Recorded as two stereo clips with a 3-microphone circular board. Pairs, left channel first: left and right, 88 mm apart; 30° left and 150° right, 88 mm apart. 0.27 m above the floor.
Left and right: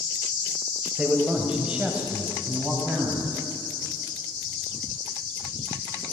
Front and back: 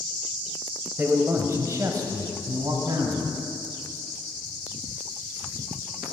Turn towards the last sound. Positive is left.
turn(degrees=-165)